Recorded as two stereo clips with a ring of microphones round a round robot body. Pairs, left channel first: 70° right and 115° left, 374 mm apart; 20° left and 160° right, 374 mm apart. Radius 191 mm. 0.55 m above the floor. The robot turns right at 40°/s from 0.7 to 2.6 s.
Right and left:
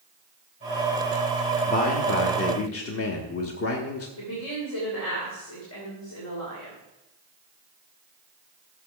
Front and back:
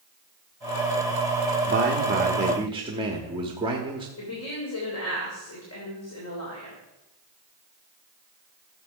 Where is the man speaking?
125° right, 1.1 m; by 4.1 s 90° right, 1.1 m.